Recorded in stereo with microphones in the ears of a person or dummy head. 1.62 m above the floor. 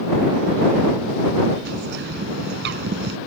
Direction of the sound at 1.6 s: 65° right (ahead or behind).